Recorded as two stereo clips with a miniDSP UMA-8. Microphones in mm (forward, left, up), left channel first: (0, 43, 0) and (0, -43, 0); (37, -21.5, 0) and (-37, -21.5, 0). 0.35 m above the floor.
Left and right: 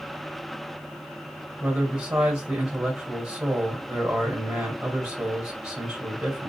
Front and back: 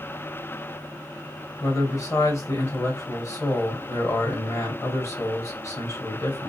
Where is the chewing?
I don't hear chewing.